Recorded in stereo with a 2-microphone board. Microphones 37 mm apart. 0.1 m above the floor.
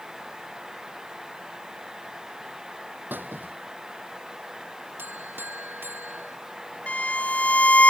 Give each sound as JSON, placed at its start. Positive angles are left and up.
{"t": 3.1, "sound": "a squeak", "side_deg": -60}
{"t": 5.0, "sound": "a buzzer", "side_deg": -70}
{"t": 6.9, "sound": "a violin", "side_deg": 45}